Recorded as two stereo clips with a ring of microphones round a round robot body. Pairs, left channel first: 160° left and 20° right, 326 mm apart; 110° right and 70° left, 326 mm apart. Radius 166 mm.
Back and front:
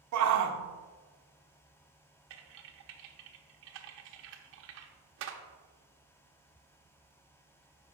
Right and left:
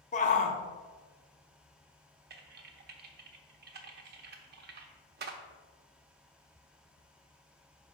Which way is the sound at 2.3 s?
15° left.